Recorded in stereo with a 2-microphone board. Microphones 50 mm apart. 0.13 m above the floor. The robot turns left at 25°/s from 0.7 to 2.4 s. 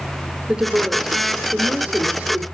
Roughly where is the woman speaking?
Centre.